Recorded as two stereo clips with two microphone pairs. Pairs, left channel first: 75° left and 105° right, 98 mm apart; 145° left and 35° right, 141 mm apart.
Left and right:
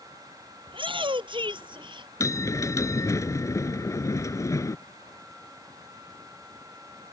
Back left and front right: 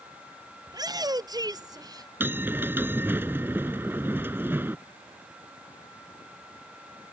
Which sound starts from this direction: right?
A shout, at 0.7 s.